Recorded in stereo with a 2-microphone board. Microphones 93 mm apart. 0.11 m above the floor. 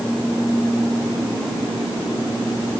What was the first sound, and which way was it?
Only background noise.